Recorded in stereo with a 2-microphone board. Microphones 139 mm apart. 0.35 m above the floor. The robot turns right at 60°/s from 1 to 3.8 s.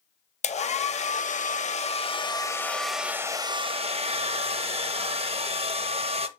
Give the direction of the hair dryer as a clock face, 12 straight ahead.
10 o'clock.